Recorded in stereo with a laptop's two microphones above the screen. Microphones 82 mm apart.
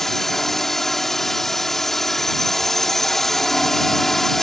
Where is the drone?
5° left (ahead or behind).